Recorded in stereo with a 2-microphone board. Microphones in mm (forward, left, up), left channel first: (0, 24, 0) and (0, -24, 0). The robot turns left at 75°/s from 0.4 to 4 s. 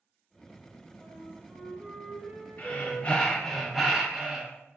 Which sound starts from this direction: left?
Breathing, at 2.6 s.